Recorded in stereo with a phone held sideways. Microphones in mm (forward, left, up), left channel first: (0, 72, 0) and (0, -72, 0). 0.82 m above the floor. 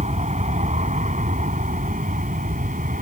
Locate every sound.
0.0 s an aircraft: 60° right (ahead or behind); by 3.0 s 75° right (ahead or behind)